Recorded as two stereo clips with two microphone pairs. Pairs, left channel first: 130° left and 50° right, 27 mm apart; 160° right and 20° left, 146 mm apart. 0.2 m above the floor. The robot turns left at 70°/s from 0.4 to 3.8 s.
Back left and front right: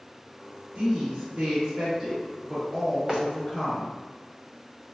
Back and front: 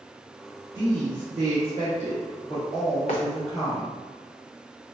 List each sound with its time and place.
0.8 s a woman speaking: 15° right, 1.8 m; by 3.9 s 130° left, 1.8 m
3.1 s footsteps: 140° right, 1.2 m; by 3.2 s 145° right, 1.2 m